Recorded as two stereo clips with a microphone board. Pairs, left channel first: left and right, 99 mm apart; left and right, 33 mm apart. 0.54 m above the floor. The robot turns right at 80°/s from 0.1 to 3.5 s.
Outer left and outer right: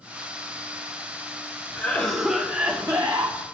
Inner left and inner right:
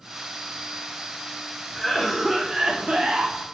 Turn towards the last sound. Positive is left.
turn(degrees=-75)